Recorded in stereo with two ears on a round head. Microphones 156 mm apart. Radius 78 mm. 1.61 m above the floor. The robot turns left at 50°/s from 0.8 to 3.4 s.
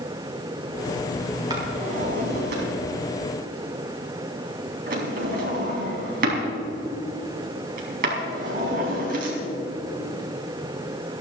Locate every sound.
1.5 s a drawer: 25° right (ahead or behind), 4 m; by 9.4 s 55° right (ahead or behind), 4 m